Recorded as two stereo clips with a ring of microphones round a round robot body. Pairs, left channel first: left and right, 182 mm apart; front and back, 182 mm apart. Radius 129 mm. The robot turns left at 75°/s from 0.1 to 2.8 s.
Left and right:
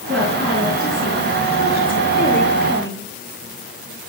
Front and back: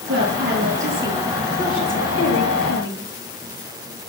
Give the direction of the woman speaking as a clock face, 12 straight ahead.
6 o'clock.